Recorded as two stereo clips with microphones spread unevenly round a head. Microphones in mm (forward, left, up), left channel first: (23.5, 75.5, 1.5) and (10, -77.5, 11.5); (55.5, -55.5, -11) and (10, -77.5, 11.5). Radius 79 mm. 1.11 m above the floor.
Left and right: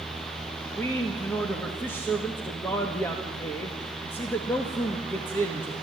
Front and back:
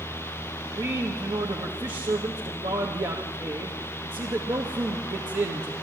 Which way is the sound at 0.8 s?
160° left.